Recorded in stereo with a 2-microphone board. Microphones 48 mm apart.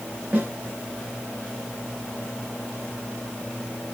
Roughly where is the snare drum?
Right.